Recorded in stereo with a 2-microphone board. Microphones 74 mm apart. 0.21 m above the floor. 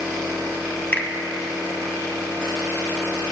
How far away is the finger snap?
About 0.9 m.